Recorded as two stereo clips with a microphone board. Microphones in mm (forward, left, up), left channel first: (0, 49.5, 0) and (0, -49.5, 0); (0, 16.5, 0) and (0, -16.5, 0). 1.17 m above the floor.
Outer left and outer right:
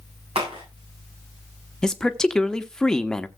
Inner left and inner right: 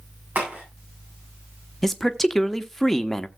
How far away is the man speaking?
About 1.0 m.